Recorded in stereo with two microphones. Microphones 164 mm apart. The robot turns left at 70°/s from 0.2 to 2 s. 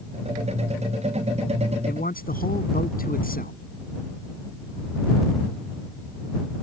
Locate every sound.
1.9 s a man speaking: 70° left (ahead or behind); by 3.5 s 60° left (ahead or behind)